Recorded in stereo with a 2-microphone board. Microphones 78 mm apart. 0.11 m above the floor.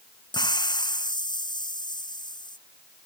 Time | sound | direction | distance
0.3 | a hiss | 70° left (ahead or behind) | ?